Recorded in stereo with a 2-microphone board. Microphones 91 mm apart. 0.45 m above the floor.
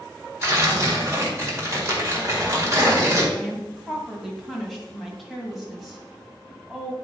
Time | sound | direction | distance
0.4 | tearing paper | 35° right (ahead or behind) | 1.9 m
3.4 | a woman speaking | centre (ahead or behind) | 2.5 m